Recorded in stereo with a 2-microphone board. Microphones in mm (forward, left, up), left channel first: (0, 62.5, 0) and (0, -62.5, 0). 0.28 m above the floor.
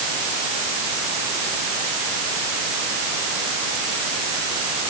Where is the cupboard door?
No cupboard door in this recording.